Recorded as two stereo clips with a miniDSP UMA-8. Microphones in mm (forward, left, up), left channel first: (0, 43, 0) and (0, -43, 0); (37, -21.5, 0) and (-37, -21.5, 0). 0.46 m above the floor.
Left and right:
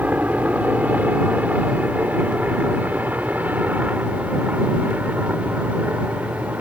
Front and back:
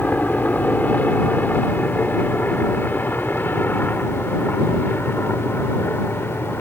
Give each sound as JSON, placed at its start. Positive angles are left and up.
{"t": 0.0, "sound": "a helicopter", "azimuth_deg": -40}